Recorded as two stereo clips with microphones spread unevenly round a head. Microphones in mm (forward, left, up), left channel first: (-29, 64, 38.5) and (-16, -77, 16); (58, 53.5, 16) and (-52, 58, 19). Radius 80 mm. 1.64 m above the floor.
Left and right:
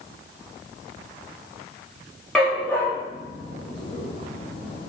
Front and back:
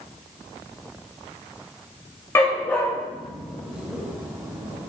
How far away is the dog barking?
About 1.2 m.